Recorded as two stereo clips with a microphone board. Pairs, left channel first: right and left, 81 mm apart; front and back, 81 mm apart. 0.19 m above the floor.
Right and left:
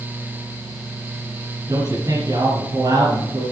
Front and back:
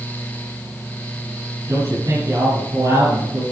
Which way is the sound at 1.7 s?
135° left.